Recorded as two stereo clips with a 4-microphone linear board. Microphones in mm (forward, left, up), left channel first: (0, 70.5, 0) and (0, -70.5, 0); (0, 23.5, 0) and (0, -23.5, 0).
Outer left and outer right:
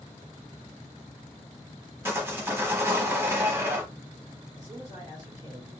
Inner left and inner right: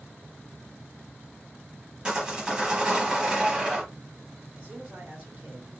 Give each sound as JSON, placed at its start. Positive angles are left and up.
{"t": 2.0, "sound": "sawing", "side_deg": -15, "distance_m": 0.8}
{"t": 4.5, "sound": "a man speaking", "side_deg": -25, "distance_m": 1.7}